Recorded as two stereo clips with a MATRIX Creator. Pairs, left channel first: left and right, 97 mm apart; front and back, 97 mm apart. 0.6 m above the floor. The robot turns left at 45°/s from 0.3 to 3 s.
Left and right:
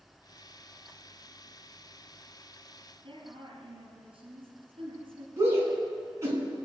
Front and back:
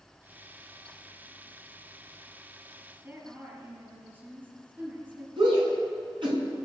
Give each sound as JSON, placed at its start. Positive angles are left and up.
{"t": 3.0, "sound": "a woman speaking", "azimuth_deg": -115, "distance_m": 4.5}
{"t": 5.4, "sound": "a shout", "azimuth_deg": -150, "distance_m": 6.5}